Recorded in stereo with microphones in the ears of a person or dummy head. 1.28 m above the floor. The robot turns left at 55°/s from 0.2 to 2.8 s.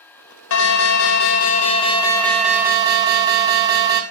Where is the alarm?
105° left, 0.9 m; by 4.0 s 20° right, 0.9 m.